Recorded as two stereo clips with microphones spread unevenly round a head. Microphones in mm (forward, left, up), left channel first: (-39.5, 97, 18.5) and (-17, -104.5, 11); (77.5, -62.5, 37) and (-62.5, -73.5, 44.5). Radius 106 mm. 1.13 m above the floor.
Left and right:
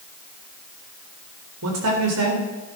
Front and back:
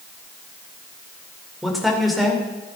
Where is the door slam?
No door slam in this recording.